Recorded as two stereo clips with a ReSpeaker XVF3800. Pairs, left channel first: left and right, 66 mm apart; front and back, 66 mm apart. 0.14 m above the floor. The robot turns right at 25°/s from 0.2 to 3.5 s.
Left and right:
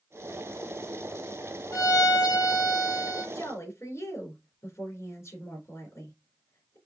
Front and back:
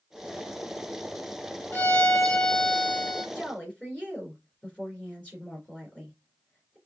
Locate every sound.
1.7 s a violin: 55° left, 1.3 m; by 3.2 s 90° left, 1.3 m
3.4 s a woman speaking: 65° left, 2.5 m; by 6.8 s 70° left, 2.5 m